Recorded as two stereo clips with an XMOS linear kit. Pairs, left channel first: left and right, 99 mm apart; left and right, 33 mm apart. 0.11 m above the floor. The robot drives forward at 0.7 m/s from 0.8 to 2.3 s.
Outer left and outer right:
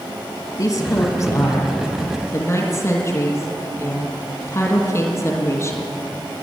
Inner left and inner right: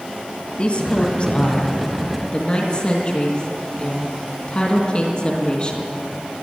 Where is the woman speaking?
40° left (ahead or behind), 2 m; by 5.9 s 30° left (ahead or behind), 3 m.